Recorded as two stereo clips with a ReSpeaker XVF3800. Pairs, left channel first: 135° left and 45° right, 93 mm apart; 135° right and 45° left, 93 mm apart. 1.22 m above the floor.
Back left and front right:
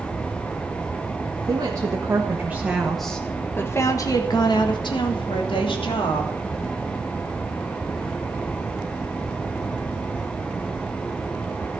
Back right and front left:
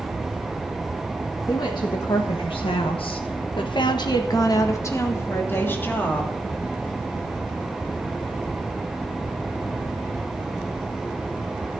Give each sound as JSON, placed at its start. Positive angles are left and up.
{"t": 1.5, "sound": "a woman speaking", "azimuth_deg": -90, "distance_m": 1.9}